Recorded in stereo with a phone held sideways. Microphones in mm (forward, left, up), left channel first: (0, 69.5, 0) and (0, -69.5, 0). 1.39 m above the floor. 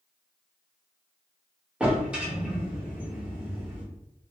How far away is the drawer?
About 1.1 m.